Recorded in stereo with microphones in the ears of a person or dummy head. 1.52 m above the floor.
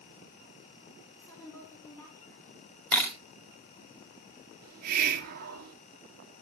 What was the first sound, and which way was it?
A woman speaking, 15° left (ahead or behind).